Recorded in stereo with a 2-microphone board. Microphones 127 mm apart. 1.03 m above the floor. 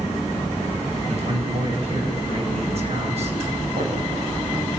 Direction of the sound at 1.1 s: 50° right (ahead or behind).